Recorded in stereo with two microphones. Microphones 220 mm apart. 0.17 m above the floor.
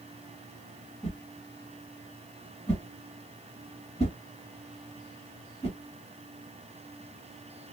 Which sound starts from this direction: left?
A whoosh, at 1.0 s.